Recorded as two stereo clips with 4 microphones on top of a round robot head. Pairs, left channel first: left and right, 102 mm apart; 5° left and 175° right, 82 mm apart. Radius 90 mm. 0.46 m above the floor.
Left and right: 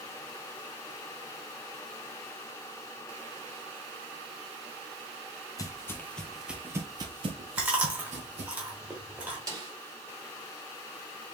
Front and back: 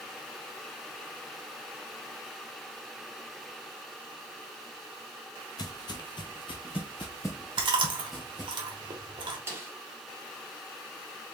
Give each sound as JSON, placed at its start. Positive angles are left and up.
{"t": 5.6, "sound": "footsteps", "azimuth_deg": 35, "distance_m": 0.8}
{"t": 7.6, "sound": "chewing", "azimuth_deg": -165, "distance_m": 1.4}
{"t": 9.5, "sound": "a snare drum", "azimuth_deg": -120, "distance_m": 2.0}